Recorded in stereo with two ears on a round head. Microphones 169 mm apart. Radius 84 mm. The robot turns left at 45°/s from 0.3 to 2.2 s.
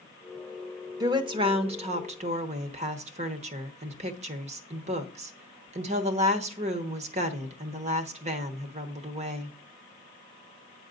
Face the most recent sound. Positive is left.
turn(degrees=-90)